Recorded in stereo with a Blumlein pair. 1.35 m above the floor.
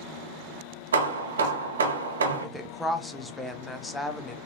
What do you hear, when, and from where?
0.9 s hammering: 65° right, 0.6 m
2.4 s a woman speaking: 10° left, 0.5 m